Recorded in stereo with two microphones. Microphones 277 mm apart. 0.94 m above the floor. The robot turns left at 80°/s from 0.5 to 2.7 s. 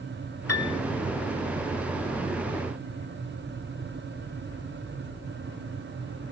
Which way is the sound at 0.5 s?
60° left (ahead or behind).